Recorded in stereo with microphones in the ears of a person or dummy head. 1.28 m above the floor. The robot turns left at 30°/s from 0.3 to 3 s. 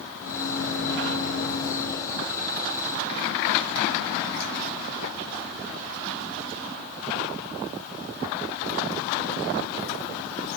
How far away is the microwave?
About 0.6 m.